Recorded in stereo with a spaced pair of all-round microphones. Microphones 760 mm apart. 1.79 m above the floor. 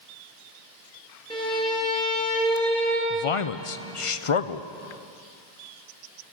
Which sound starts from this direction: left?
A man speaking, at 3.1 s.